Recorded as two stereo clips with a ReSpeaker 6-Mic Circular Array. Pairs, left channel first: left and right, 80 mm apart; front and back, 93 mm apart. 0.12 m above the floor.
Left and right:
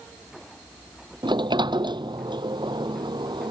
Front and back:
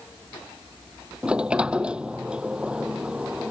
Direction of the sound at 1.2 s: 100° right.